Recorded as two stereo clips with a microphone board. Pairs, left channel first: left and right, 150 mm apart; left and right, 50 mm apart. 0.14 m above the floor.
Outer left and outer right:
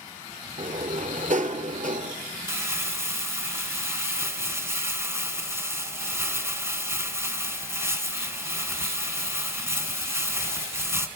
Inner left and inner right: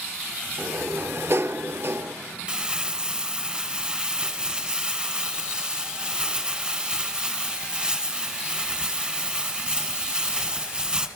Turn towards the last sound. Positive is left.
turn(degrees=-20)  # may be behind; listen again after turning